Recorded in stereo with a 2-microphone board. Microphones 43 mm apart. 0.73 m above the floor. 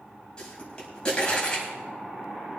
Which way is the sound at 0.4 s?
20° left (ahead or behind).